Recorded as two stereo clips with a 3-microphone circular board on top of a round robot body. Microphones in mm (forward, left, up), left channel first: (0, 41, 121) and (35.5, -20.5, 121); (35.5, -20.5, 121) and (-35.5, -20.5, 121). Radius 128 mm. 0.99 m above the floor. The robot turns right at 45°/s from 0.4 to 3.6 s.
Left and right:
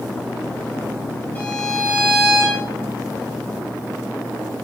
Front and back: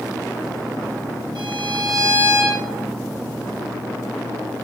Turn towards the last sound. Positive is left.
turn(degrees=-70)